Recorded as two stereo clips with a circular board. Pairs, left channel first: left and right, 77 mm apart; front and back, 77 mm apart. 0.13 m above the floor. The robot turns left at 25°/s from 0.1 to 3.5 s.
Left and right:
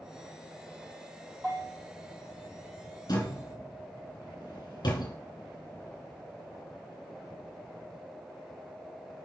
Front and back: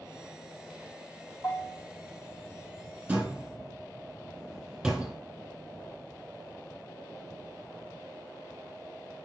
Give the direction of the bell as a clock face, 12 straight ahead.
11 o'clock.